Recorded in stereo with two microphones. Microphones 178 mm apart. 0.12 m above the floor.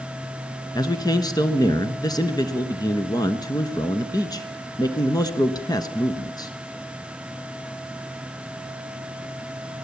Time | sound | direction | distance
0.8 | a man speaking | 20° left (ahead or behind) | 1.2 m